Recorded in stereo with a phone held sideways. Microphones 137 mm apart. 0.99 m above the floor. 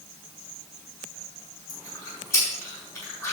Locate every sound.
1.7 s chewing: 20° left (ahead or behind), 4.5 m